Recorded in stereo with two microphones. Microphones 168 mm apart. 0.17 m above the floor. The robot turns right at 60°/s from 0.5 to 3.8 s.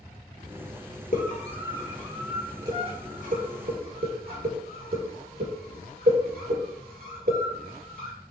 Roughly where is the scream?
Left.